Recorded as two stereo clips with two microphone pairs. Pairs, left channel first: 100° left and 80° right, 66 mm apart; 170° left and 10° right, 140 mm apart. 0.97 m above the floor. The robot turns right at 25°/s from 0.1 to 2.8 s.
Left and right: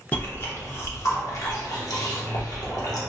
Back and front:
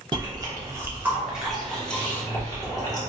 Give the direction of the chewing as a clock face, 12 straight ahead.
11 o'clock.